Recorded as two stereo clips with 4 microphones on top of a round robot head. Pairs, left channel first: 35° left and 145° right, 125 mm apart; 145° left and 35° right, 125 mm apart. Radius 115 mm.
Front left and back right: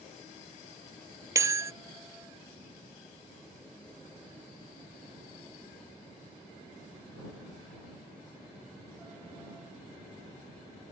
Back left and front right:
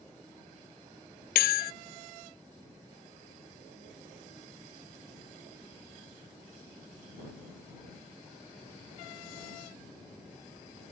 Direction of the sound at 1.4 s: 145° left.